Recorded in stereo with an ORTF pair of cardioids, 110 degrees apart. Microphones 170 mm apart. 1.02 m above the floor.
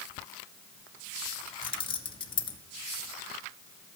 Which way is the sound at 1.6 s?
30° left.